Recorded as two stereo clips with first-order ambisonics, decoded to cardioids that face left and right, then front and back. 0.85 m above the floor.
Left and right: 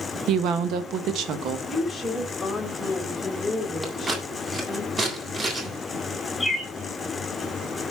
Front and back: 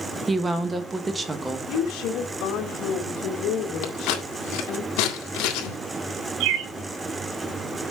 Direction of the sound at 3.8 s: 20° right.